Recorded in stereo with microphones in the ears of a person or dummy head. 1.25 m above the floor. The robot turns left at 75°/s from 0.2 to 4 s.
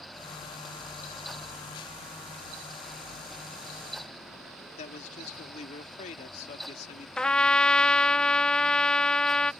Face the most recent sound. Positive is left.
turn(degrees=10)  # may be behind; listen again after turning